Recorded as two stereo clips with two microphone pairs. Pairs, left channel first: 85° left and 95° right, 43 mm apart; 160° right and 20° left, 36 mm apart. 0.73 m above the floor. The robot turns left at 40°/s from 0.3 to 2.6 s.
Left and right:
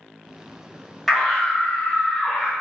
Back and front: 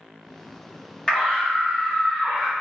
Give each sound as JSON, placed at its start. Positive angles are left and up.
{"t": 1.1, "sound": "a scream", "azimuth_deg": 180, "distance_m": 0.8}